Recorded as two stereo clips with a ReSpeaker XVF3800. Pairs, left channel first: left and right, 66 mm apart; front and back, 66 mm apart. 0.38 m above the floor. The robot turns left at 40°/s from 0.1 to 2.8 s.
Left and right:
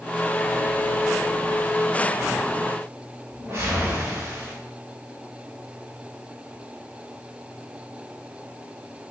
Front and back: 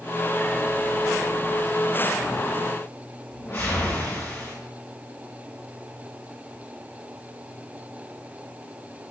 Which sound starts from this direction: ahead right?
A whoosh, at 3.3 s.